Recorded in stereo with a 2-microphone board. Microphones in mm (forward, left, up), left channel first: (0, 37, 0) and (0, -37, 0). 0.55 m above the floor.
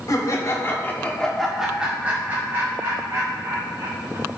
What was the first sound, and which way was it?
Laughter, 50° left (ahead or behind).